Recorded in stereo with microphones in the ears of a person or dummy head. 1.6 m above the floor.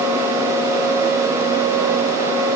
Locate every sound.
Only background noise.